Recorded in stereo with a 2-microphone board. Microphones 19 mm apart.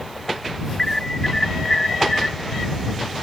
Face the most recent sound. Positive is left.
turn(degrees=30)  # may be behind; listen again after turning